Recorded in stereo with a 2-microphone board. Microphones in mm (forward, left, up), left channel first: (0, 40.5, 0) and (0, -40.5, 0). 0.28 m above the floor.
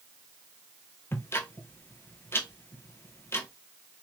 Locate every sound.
1.1 s ticking: 30° left (ahead or behind), 1.0 m